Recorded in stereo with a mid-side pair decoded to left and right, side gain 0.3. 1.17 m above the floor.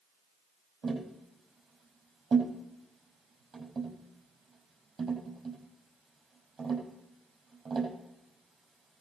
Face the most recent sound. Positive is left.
turn(degrees=-60)